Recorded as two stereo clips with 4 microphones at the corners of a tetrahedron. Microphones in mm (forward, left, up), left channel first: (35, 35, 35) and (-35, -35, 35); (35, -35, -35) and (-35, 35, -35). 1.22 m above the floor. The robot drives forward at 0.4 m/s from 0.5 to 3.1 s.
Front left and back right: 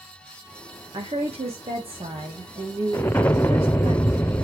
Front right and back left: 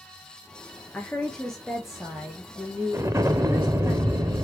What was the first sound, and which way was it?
A woman speaking, 120° right.